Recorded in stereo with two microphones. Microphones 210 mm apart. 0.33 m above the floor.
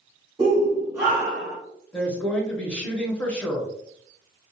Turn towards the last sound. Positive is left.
turn(degrees=5)  # may be behind; listen again after turning